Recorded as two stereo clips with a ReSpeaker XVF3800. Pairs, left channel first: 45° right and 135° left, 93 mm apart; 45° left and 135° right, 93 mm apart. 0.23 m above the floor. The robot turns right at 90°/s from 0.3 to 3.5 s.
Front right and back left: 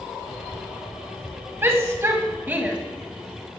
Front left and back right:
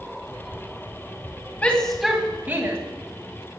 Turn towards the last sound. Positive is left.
turn(degrees=-90)